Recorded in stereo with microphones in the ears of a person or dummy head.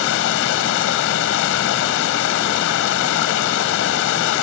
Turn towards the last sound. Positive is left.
turn(degrees=65)  # may be behind; listen again after turning